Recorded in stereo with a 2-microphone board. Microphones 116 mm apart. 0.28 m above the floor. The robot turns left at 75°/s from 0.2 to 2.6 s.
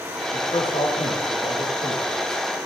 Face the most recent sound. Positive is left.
turn(degrees=-20)